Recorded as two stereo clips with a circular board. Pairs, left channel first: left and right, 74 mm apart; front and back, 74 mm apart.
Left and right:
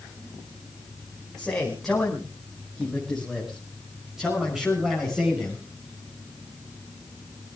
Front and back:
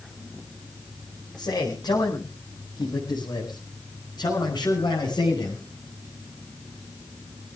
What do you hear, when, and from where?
1.4 s a man speaking: 5° left, 5 m; by 5.6 s 15° right, 6.5 m